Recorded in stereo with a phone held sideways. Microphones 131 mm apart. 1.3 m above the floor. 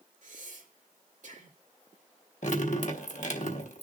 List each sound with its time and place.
0.2 s breathing: 65° right (ahead or behind), 2.5 m
2.4 s dripping: 65° left (ahead or behind), 1.3 m